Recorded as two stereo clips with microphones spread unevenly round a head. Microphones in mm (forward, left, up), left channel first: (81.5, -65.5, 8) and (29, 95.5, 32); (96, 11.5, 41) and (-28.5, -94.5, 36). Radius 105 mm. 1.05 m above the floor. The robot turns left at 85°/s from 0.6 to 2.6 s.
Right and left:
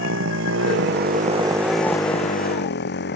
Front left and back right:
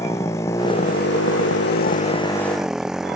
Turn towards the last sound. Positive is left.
turn(degrees=-55)